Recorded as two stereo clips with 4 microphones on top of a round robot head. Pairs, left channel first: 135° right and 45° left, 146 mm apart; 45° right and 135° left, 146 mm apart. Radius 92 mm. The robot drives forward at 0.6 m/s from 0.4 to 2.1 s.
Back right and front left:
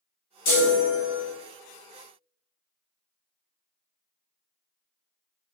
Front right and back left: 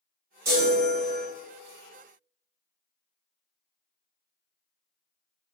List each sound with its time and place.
0.5 s a chime: 155° right, 0.9 m; by 1.2 s 165° right, 1.3 m